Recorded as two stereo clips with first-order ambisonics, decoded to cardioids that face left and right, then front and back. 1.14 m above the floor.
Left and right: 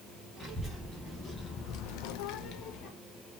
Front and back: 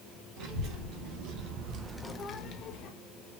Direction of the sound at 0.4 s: Straight behind.